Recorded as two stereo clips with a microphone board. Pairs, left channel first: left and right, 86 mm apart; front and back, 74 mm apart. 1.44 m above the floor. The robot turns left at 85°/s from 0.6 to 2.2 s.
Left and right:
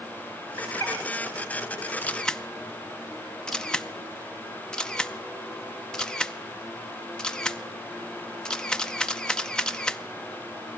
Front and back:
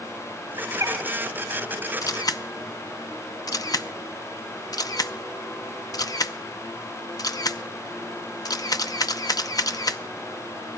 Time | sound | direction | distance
0.6 | a bird | 155° left | 7.5 m
2.0 | a camera shutter | 25° left | 0.5 m